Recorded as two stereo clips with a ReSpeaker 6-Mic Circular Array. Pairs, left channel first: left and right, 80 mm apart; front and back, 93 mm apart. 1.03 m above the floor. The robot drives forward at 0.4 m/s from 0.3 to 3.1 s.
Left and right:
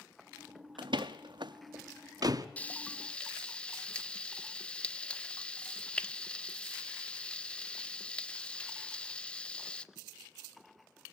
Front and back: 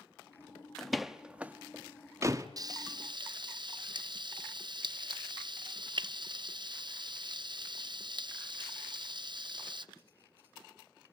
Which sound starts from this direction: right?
A door slam, at 0.8 s.